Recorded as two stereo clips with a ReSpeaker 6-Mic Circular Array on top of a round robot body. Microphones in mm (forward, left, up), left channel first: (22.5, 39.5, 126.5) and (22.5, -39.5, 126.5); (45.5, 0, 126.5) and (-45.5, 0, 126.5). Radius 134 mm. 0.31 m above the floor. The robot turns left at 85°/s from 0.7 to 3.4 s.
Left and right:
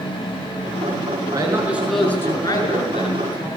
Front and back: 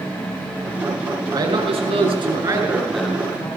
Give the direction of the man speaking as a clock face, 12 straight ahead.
4 o'clock.